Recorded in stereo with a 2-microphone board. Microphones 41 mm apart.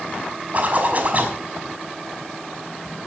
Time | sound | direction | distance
0.5 | a zipper | 40° right (ahead or behind) | 5.5 m